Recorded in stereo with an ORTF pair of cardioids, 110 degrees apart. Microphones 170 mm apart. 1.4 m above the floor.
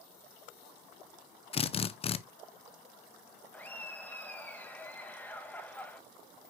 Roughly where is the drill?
Ahead left.